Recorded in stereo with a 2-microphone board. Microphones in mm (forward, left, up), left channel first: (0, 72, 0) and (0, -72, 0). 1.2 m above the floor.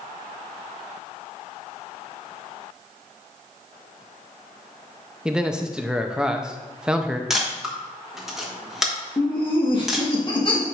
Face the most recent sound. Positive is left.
turn(degrees=35)  # may be behind; listen again after turning